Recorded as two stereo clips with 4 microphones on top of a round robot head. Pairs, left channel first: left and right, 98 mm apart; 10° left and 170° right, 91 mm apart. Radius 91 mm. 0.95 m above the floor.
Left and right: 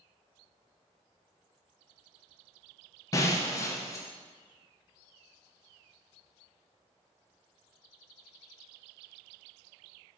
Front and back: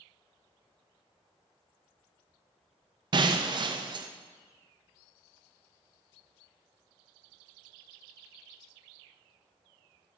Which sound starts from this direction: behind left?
Breaking glass, at 3.1 s.